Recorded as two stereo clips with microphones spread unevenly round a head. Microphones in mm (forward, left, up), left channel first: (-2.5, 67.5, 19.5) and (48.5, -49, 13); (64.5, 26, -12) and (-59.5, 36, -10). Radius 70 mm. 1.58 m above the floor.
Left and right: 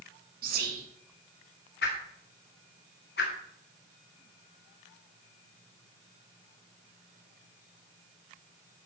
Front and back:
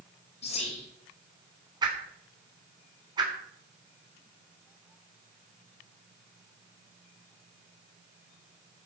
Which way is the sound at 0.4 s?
60° right.